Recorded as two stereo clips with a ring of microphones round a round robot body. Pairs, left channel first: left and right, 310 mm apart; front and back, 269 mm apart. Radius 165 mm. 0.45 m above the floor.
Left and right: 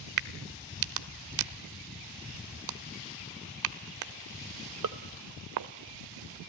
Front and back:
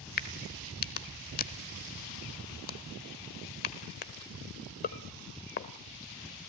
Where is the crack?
60° right, 0.9 m.